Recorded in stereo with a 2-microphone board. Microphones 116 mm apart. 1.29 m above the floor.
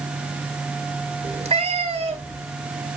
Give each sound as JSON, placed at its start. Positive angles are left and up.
{"t": 1.2, "sound": "a cat meowing", "side_deg": -60, "distance_m": 2.5}